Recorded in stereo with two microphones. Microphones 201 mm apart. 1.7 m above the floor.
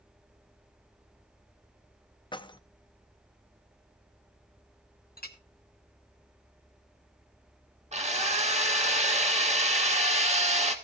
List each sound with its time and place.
2.3 s keys jangling: 25° left (ahead or behind), 0.6 m
5.2 s a clink: 50° left (ahead or behind), 1.1 m
7.9 s a drill: 35° right (ahead or behind), 1.6 m